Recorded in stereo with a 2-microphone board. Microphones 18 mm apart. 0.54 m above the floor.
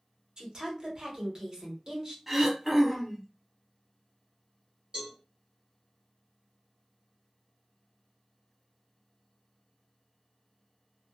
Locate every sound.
0.4 s a woman speaking: 40° right (ahead or behind), 1.2 m
2.3 s throat clearing: 10° right (ahead or behind), 0.7 m
4.9 s a cowbell: 45° right (ahead or behind), 1.8 m